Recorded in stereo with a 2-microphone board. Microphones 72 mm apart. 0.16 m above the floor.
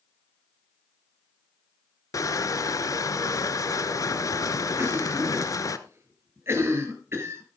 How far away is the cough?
About 3.5 m.